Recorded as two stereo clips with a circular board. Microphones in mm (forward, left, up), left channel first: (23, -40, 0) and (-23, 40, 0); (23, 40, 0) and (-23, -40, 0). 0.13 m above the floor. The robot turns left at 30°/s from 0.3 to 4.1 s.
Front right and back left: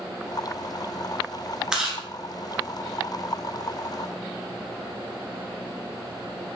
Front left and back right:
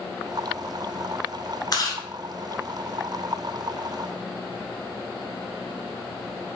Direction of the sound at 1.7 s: 40° left.